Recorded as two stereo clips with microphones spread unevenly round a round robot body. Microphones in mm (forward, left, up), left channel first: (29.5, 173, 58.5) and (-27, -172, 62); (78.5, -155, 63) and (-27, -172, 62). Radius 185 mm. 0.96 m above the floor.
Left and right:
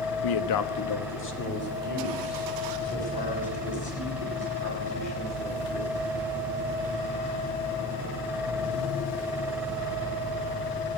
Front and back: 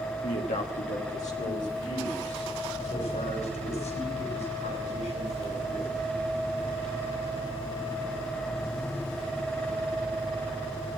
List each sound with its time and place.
0.2 s a man speaking: 60° left, 0.9 m; by 5.9 s 10° left, 8.5 m